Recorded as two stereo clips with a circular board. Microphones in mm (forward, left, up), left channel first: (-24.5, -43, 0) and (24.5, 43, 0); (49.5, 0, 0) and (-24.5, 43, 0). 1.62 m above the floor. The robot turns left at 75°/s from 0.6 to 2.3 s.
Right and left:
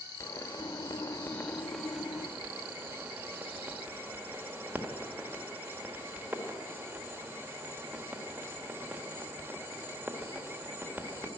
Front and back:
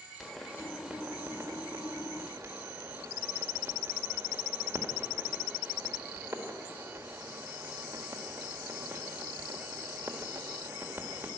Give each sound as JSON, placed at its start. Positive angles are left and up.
{"t": 0.2, "sound": "a pop", "azimuth_deg": -115, "distance_m": 1.5}